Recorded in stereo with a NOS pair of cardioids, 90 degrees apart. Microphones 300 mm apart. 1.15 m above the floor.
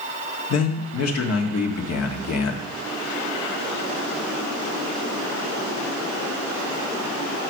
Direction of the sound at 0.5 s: 55° left.